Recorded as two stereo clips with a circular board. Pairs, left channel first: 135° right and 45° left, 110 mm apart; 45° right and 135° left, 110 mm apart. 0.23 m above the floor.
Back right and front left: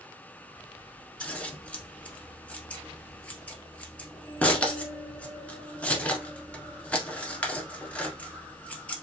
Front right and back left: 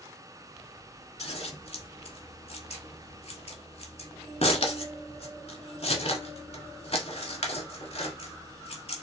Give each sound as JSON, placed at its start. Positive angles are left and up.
{"t": 1.2, "sound": "scissors", "azimuth_deg": -60, "distance_m": 1.2}